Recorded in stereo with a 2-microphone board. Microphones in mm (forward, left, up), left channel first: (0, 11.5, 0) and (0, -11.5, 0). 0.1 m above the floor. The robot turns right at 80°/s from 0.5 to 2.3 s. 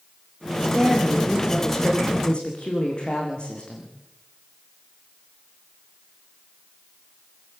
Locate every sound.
0.6 s a woman speaking: 85° right, 8 m; by 3.9 s 50° left, 8 m